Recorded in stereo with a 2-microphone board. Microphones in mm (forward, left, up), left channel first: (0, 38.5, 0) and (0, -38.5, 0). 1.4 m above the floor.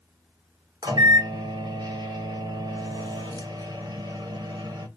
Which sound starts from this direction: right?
A microwave, at 0.8 s.